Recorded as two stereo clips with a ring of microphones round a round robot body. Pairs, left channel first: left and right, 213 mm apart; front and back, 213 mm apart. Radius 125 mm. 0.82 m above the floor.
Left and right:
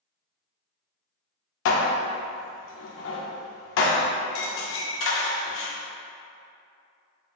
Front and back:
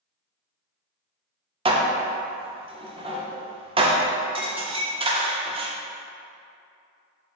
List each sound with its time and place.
1.6 s dishes clattering: 115° left, 0.5 m